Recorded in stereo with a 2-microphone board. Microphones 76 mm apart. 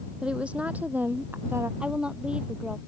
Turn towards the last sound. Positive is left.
turn(degrees=-15)  # may be behind; listen again after turning